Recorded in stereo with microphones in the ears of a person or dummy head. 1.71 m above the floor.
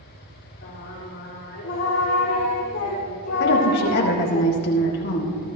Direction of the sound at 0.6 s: 55° left (ahead or behind).